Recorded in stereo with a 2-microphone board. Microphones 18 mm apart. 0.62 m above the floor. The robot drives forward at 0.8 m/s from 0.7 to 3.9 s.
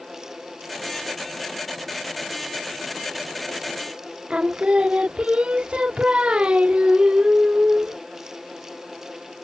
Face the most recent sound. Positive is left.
turn(degrees=-65)  # may be behind; listen again after turning